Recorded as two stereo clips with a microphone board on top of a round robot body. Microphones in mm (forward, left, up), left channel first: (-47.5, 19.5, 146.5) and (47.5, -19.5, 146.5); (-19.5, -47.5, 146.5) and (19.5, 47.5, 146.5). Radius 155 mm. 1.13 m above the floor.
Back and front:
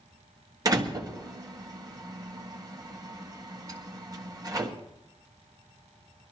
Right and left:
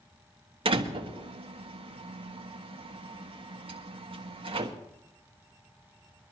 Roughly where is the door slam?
Ahead left.